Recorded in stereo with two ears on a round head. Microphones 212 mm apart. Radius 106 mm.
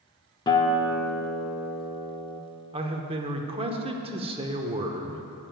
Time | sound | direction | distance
0.5 | a guitar | 20° left (ahead or behind) | 0.6 m
2.7 | a man speaking | 25° right (ahead or behind) | 0.8 m